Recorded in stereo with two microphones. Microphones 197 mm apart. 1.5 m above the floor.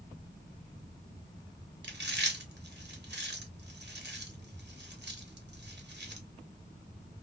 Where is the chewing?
60° right (ahead or behind), 0.8 m.